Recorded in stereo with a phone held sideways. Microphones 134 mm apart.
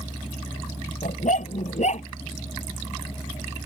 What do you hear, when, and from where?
1.0 s a dog barking: 65° left (ahead or behind); by 2.1 s 55° left (ahead or behind)